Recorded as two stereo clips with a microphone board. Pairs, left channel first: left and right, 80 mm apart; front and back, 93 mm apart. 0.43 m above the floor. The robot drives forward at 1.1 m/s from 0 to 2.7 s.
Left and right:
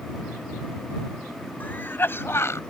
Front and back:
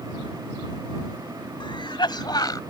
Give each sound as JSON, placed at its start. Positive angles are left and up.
{"t": 1.6, "sound": "a cough", "azimuth_deg": 25}